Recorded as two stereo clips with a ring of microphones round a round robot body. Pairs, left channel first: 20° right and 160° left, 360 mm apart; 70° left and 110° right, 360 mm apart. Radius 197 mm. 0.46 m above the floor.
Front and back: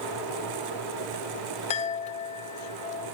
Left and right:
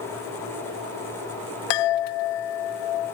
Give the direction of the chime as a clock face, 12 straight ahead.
10 o'clock.